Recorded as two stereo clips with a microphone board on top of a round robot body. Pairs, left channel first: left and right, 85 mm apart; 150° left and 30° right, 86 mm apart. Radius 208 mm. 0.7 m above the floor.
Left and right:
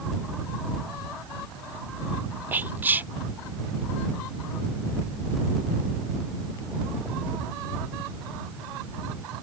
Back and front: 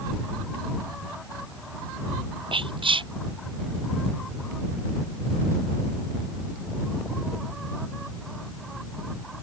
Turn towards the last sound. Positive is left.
turn(degrees=-20)